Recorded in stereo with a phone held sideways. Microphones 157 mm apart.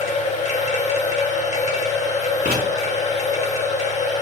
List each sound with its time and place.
0.0 s a machine running: 50° left (ahead or behind), 1.4 m
2.5 s writing: 70° right (ahead or behind), 4 m